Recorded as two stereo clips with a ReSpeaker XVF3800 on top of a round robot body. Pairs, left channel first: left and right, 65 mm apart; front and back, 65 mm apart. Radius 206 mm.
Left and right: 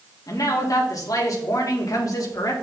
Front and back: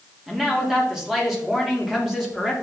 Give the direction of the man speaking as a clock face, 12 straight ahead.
9 o'clock.